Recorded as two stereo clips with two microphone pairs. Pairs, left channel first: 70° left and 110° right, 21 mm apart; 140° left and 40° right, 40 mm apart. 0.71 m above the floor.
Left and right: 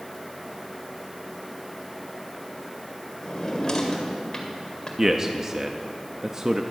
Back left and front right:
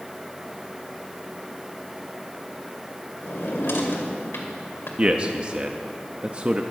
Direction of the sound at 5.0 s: 65° right.